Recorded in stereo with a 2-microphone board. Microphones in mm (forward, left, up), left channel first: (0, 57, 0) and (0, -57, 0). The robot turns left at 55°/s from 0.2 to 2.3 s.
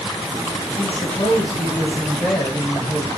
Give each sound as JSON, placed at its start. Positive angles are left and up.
{"t": 0.8, "sound": "a woman speaking", "azimuth_deg": 95, "distance_m": 1.5}